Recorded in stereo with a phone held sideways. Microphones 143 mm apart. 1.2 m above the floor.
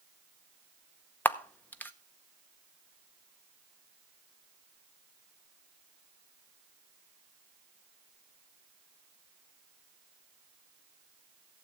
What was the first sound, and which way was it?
A camera shutter, 10° left (ahead or behind).